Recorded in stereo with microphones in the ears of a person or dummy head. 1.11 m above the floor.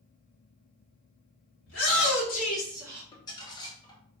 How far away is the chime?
No chime in this recording.